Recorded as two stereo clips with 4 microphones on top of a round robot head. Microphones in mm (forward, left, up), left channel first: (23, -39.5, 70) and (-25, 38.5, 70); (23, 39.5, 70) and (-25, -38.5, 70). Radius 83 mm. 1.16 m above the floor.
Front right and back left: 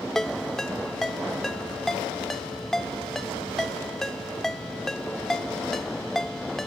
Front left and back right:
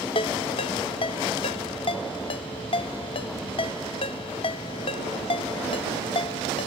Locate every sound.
0.1 s a ringtone: 30° left